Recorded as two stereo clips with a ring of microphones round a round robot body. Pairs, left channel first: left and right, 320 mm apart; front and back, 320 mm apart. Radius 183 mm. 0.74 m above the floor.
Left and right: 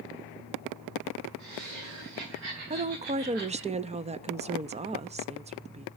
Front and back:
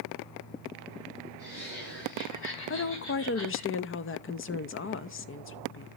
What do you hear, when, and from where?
1.4 s laughter: 60° right, 7.5 m; by 3.7 s 40° right, 9.5 m
2.7 s a woman speaking: 30° right, 0.8 m